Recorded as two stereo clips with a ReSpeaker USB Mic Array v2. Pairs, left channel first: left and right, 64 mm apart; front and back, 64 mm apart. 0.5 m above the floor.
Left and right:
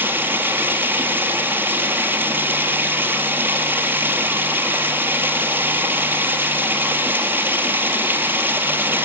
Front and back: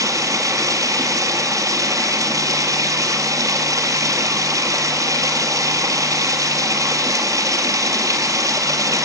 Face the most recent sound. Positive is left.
turn(degrees=-145)